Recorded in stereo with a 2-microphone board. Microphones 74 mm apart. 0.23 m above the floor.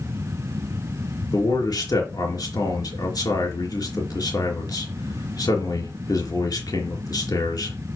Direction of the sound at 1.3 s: 65° left (ahead or behind).